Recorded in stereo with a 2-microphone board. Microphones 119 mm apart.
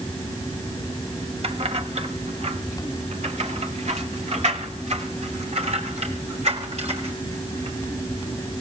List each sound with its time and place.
1.4 s keys jangling: 55° right (ahead or behind), 1.4 m; by 7.8 s 65° right (ahead or behind), 4.5 m